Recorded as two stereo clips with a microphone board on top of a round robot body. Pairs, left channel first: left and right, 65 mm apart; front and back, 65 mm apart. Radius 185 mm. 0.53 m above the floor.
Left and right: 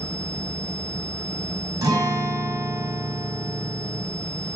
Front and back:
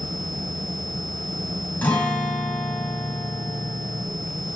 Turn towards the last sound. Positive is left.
turn(degrees=-65)